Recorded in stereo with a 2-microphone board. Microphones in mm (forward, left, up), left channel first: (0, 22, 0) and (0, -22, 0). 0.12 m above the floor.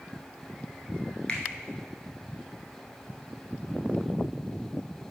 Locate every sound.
1.3 s a finger snap: 25° left (ahead or behind), 1.2 m